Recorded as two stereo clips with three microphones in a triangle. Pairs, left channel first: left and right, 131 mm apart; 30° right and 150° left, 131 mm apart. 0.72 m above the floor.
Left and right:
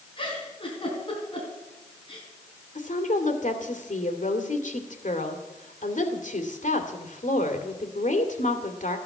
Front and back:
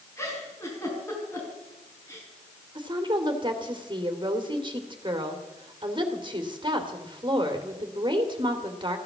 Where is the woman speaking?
100° left, 2 m.